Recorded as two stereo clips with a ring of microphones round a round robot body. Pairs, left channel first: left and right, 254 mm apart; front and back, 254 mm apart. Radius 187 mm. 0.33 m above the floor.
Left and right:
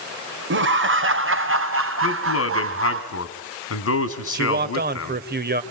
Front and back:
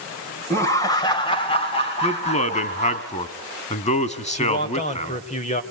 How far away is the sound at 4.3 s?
About 1.8 m.